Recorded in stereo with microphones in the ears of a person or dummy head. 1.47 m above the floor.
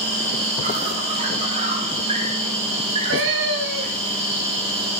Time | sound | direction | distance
0.0 | an insect | 30° right (ahead or behind) | 3 m
2.8 | a cat meowing | 65° right (ahead or behind) | 2.5 m